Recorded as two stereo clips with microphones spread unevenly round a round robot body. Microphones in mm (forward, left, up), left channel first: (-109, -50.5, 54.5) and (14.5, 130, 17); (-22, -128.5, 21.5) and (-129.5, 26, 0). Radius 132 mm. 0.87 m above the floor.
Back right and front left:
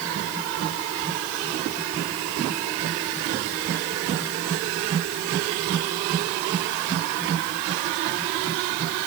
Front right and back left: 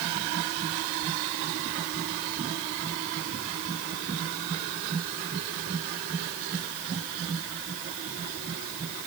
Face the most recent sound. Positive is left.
No sound to turn to.